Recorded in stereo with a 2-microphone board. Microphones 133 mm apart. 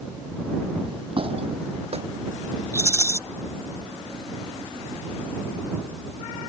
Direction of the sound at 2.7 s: 20° left (ahead or behind).